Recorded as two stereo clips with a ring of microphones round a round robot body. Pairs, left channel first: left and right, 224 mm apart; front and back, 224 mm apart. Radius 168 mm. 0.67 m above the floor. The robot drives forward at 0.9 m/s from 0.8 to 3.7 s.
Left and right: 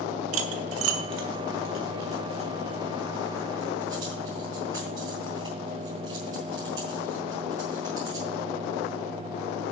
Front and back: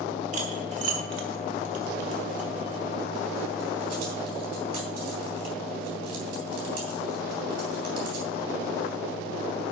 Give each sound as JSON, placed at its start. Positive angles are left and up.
{"t": 0.3, "sound": "cutlery clinking", "azimuth_deg": -115, "distance_m": 0.7}